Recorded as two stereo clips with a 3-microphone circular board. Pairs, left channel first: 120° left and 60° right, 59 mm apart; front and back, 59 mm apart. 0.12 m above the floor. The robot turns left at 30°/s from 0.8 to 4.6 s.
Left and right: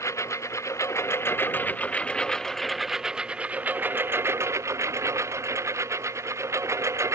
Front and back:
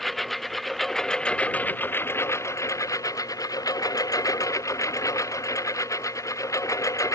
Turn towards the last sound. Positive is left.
turn(degrees=-25)